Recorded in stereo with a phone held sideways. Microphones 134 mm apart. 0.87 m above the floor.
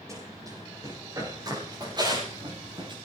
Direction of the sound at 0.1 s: 25° right (ahead or behind).